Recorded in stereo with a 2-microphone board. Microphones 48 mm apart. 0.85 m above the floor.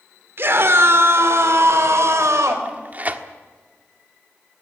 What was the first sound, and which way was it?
A scream, 50° right (ahead or behind).